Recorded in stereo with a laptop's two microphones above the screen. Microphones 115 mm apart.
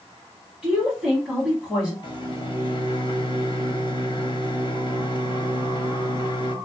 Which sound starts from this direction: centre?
A woman speaking, at 0.6 s.